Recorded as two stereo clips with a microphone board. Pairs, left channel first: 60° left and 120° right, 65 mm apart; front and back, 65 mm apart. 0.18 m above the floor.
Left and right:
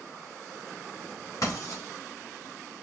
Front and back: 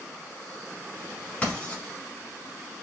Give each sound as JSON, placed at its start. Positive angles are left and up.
{"t": 1.4, "sound": "writing", "azimuth_deg": 65, "distance_m": 3.0}